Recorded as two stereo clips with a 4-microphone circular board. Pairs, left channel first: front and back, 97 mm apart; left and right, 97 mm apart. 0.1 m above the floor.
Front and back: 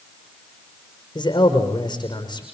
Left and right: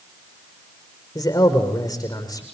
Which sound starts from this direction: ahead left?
A man speaking, at 1.1 s.